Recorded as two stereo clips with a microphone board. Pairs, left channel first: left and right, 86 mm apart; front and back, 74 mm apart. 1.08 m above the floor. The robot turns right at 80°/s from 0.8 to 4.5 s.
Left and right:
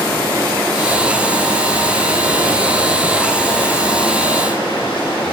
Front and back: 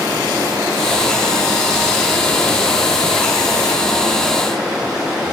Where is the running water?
160° left, 1.7 m; by 5.3 s 95° left, 1.7 m.